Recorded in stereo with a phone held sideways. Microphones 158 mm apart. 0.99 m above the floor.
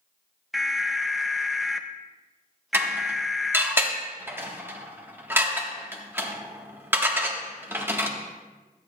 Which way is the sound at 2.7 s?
15° right (ahead or behind).